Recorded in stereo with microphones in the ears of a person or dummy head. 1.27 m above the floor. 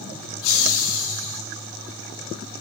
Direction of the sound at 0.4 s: 70° left (ahead or behind).